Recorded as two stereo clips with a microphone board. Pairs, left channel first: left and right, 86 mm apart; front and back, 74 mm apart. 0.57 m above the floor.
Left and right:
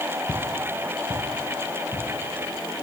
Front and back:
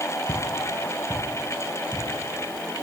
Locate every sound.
0.3 s footsteps: 30° left, 1.3 m; by 2.0 s 45° left, 3 m